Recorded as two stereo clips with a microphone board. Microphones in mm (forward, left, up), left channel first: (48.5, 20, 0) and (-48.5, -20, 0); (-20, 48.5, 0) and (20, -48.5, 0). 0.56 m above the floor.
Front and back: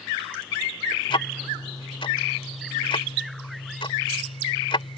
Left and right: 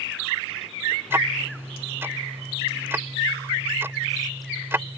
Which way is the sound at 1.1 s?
Straight ahead.